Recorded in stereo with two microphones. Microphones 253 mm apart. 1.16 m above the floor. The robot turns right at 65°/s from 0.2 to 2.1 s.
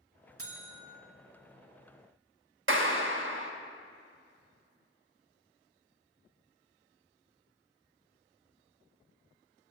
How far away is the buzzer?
About 1.4 m.